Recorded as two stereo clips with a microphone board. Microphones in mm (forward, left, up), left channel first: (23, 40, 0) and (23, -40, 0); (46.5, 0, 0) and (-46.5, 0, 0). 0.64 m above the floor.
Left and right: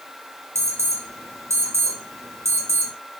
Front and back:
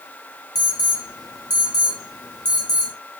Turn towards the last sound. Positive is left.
turn(degrees=-40)